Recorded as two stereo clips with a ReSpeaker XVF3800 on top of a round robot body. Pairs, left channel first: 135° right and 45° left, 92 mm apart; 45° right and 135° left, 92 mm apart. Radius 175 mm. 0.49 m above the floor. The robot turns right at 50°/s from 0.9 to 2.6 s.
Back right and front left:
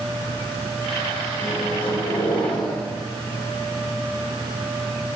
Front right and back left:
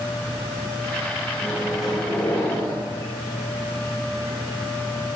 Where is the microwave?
155° right, 1.8 m; by 2.8 s 95° right, 1.8 m.